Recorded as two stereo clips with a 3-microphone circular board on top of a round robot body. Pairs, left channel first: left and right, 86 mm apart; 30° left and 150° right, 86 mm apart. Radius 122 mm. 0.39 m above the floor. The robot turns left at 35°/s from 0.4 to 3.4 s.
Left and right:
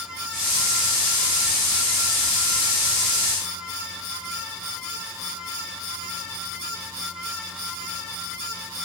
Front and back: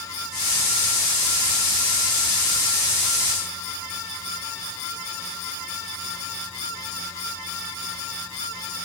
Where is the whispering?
No whispering in this recording.